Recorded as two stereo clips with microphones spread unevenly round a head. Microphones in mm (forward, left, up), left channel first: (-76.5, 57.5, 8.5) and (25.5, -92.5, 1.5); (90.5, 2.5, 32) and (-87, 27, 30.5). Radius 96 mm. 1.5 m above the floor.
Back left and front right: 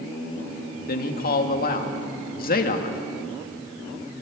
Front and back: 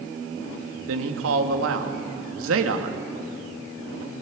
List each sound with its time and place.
0.9 s a man speaking: 165° left, 2.5 m